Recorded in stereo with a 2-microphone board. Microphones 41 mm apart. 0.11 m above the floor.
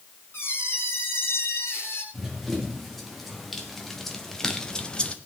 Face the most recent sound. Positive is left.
turn(degrees=30)  # may be behind; listen again after turning